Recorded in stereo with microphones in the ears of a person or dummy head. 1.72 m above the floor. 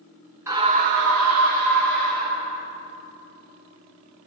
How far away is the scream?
About 0.8 m.